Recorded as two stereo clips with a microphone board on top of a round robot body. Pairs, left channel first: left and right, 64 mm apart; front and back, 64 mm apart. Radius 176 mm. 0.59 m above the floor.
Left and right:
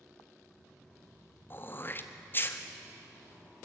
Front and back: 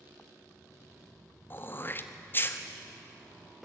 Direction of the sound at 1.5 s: 45° left.